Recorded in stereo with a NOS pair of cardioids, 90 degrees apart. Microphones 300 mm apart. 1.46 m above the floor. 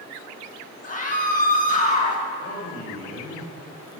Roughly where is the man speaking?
Ahead left.